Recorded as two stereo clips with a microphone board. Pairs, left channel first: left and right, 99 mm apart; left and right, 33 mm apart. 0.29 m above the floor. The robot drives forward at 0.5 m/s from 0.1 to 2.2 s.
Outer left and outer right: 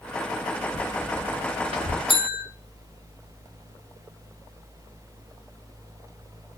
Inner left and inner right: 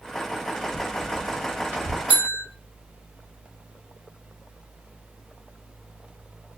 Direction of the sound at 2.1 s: 60° right (ahead or behind).